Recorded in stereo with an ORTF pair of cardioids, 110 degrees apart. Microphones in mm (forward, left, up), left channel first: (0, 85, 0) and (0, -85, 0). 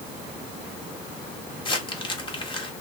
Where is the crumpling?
30° left, 1.7 m.